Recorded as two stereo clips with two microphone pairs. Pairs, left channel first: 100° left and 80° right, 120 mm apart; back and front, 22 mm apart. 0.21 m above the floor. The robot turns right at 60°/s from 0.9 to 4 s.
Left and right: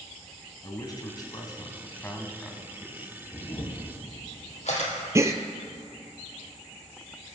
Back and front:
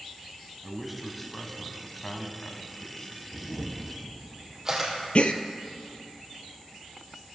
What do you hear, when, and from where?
0.6 s a man speaking: 85° left, 1.5 m; by 3.2 s 135° right, 1.5 m
3.3 s a camera shutter: 30° left, 3 m; by 4.9 s 75° left, 3 m
5.2 s a gasp: 150° right, 0.7 m